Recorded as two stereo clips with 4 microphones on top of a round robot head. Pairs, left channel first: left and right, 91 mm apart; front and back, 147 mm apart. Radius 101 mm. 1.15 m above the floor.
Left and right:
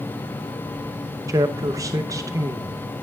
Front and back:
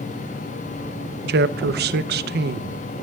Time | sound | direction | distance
1.3 | a man speaking | 155° right | 0.5 m